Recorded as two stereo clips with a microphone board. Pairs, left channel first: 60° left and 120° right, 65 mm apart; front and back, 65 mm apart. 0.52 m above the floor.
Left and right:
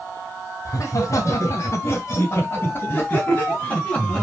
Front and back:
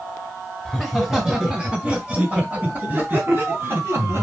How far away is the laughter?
About 2.5 m.